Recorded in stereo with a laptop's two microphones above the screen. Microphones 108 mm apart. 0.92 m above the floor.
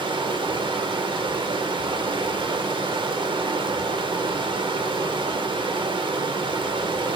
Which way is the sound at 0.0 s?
50° right (ahead or behind).